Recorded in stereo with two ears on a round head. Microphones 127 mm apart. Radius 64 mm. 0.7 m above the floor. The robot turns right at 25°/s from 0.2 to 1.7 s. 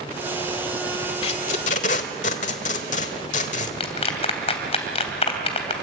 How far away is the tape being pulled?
About 1.4 m.